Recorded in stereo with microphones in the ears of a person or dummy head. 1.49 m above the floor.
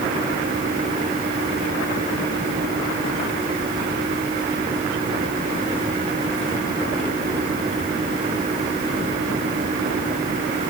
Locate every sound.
Only background noise.